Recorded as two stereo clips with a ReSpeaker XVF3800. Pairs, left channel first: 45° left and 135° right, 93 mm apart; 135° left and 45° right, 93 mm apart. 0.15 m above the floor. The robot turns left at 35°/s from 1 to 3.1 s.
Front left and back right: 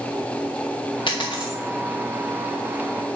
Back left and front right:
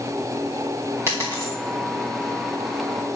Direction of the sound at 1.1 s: 15° left.